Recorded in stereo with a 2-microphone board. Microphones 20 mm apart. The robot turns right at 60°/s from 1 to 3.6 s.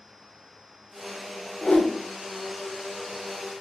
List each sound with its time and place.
1.6 s a whoosh: 30° left (ahead or behind), 0.8 m; by 1.9 s 25° left (ahead or behind), 0.8 m